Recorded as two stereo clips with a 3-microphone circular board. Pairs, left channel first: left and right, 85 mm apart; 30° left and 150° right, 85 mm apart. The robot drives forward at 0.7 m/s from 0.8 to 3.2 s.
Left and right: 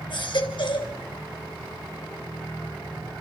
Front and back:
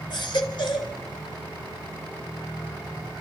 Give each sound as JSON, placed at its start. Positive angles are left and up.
{"t": 0.1, "sound": "a baby crying", "azimuth_deg": 60, "distance_m": 2.5}